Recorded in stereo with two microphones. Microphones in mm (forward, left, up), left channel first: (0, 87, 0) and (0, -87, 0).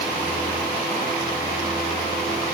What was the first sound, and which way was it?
Only background noise.